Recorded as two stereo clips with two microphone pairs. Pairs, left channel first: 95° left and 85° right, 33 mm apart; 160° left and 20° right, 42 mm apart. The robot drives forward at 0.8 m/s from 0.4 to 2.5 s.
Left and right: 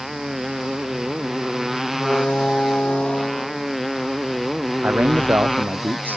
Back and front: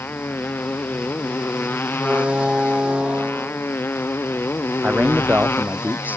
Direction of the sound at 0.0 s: 165° right.